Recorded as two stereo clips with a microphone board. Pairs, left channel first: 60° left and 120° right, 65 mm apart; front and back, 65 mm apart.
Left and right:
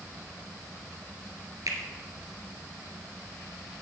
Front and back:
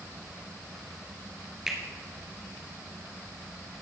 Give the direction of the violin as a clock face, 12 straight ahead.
No violin in this recording.